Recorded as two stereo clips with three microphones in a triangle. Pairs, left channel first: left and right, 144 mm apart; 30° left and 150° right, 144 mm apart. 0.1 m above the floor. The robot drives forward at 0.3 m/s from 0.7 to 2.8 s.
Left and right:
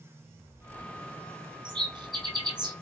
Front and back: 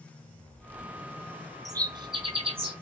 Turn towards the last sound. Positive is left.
turn(degrees=-140)